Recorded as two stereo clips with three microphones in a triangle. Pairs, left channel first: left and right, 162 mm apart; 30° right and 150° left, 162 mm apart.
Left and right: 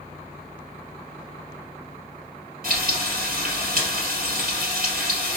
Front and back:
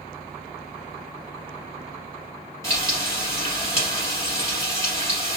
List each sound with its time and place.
2.6 s frying: 100° right, 2 m